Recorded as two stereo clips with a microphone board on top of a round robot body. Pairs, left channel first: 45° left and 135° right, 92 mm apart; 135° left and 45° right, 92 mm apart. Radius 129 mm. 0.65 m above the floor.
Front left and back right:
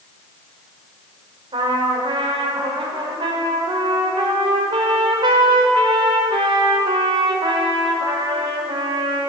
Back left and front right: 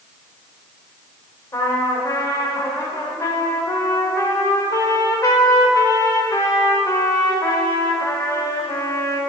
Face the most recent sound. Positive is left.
turn(degrees=-170)